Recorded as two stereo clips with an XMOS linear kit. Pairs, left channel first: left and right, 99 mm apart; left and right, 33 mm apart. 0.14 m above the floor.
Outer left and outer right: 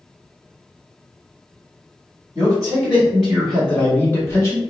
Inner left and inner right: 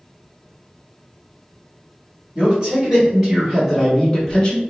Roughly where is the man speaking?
Right.